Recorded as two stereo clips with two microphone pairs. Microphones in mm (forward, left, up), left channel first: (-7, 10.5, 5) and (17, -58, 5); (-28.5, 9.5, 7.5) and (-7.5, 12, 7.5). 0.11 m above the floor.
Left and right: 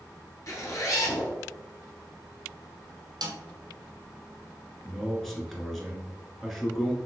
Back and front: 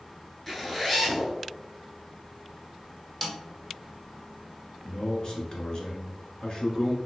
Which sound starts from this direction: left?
A zipper, at 0.5 s.